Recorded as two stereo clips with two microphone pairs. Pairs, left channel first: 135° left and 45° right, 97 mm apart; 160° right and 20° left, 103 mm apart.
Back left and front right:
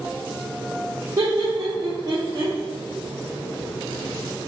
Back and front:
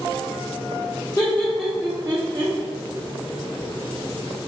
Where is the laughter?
105° right, 0.7 m; by 2.5 s straight ahead, 0.9 m.